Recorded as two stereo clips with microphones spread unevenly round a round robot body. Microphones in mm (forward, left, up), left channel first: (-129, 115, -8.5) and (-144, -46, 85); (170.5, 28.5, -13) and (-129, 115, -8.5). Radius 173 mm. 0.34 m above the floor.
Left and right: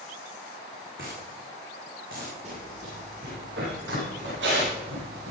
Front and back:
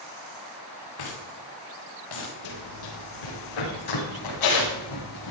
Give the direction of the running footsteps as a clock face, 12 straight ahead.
1 o'clock.